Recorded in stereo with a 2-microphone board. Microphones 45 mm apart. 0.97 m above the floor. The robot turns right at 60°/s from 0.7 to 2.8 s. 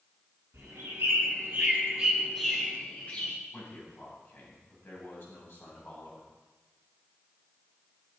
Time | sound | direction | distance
0.5 | a bird | 90° right | 8 m
3.5 | a man speaking | 50° left (ahead or behind) | 8 m